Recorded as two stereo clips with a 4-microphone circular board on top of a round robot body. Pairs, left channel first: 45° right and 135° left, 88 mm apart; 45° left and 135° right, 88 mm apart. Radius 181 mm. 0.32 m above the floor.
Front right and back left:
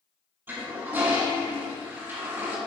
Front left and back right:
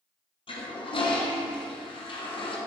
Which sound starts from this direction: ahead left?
A toilet flushing, at 0.5 s.